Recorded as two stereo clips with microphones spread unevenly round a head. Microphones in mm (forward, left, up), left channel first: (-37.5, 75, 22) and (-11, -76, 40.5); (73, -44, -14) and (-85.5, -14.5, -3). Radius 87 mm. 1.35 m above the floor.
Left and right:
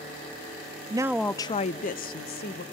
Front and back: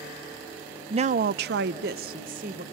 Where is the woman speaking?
135° right, 0.5 m; by 2.6 s 120° left, 1.2 m.